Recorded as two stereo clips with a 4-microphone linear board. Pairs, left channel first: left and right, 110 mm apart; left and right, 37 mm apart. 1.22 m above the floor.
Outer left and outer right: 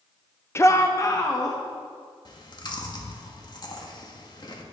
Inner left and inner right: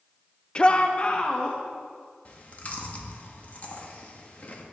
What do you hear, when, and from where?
0.6 s a shout: 25° left (ahead or behind), 0.5 m; by 1.6 s 35° left (ahead or behind), 1.6 m
2.2 s chewing: 45° left (ahead or behind), 1.5 m